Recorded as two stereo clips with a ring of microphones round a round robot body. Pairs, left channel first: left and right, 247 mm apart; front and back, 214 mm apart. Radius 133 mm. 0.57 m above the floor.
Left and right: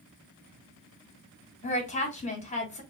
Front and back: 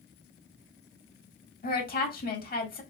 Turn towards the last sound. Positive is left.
turn(degrees=35)